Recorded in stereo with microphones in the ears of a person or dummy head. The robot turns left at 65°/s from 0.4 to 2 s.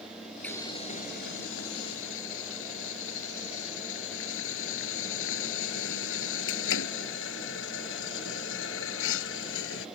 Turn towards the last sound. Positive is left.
turn(degrees=70)